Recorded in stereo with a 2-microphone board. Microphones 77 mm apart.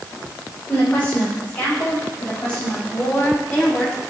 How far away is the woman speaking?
About 5 m.